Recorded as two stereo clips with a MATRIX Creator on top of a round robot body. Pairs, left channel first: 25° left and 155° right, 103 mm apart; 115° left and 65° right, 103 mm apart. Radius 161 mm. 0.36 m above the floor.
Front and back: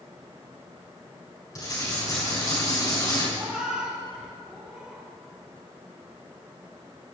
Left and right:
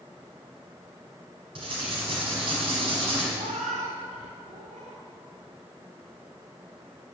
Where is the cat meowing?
75° right, 1.9 m.